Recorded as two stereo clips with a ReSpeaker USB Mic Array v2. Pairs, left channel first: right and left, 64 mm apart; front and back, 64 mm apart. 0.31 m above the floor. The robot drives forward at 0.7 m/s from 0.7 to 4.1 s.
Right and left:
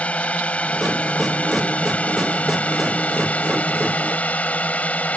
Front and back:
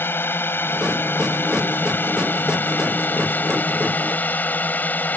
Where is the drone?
30° right; by 5.2 s 40° right.